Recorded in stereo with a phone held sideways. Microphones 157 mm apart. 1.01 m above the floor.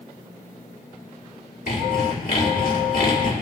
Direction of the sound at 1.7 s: 65° left (ahead or behind).